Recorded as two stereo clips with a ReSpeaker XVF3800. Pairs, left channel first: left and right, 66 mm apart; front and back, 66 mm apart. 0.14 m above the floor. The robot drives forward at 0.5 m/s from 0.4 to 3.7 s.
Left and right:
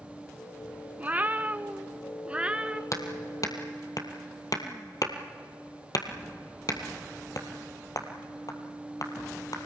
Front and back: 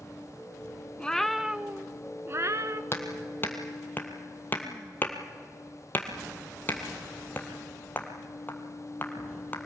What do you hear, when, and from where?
1.0 s a cat meowing: 55° right, 0.6 m; by 2.8 s 160° right, 0.9 m
2.9 s hammering: 50° left, 1.9 m; by 9.6 s 60° left, 1.7 m